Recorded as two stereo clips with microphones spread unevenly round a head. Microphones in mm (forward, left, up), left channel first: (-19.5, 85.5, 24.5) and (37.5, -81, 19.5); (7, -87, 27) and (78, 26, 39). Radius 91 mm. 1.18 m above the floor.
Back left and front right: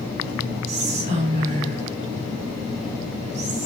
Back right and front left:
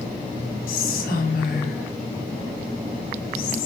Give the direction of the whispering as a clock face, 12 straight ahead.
4 o'clock.